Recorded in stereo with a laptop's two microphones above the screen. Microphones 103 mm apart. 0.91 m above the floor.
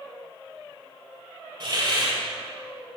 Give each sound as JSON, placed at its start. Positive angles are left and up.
{"t": 1.6, "sound": "a hiss", "side_deg": -50, "distance_m": 2.0}